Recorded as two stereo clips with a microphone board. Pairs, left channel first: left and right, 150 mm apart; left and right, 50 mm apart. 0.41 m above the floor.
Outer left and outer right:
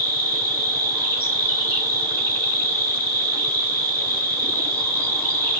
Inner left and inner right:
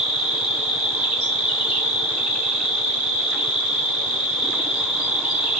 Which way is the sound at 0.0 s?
20° right (ahead or behind).